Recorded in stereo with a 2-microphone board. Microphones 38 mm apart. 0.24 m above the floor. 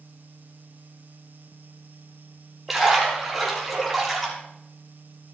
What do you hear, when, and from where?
2.7 s a splash: centre (ahead or behind), 6.5 m